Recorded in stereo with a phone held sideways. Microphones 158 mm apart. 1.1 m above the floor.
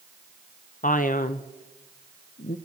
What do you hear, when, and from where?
0.8 s a man speaking: 60° left (ahead or behind), 0.7 m